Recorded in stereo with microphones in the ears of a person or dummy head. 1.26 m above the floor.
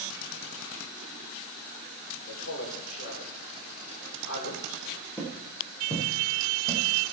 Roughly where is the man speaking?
Left.